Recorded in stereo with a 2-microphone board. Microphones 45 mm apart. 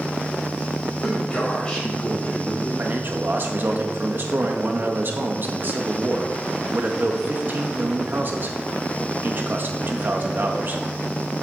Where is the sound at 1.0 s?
10° left (ahead or behind), 5.5 m; by 2.7 s 30° left (ahead or behind), 6 m.